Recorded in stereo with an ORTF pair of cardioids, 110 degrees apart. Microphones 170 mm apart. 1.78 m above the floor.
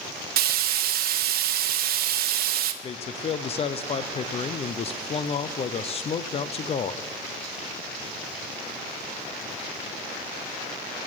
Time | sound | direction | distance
0.4 | frying | 65° right | 1.3 m
2.8 | a man speaking | 35° left | 0.8 m